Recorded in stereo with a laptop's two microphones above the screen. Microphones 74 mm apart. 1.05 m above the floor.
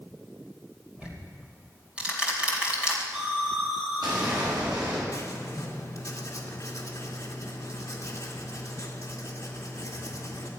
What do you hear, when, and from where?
1.0 s ticking: 15° right (ahead or behind), 2.5 m
3.1 s an explosion: 85° right, 6.5 m
5.1 s writing: 45° left (ahead or behind), 2.5 m